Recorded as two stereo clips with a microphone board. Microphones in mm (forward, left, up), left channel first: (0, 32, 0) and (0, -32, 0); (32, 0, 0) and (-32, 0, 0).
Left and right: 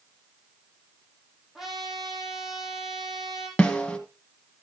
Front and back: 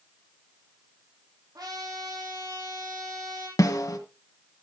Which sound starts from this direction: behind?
A trumpet, at 1.6 s.